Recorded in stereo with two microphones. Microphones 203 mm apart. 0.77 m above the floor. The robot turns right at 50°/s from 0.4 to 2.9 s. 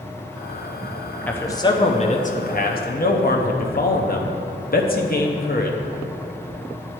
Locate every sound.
1.3 s a man speaking: 10° left, 0.7 m; by 5.8 s 95° left, 0.7 m